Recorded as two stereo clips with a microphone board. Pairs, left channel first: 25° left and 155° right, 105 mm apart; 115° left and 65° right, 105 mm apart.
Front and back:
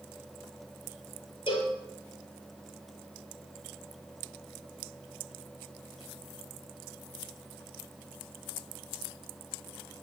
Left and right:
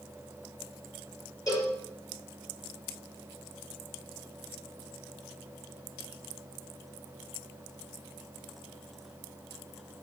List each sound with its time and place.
1.5 s a cowbell: 55° left, 5 m